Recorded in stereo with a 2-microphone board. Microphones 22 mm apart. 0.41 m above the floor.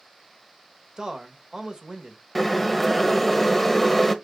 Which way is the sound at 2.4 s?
15° left (ahead or behind).